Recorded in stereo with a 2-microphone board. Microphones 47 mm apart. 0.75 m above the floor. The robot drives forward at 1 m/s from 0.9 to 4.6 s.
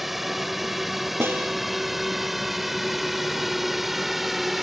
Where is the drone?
5° right (ahead or behind).